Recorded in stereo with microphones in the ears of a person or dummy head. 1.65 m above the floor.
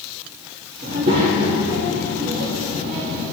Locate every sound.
0.8 s a child speaking: 45° right (ahead or behind), 1.7 m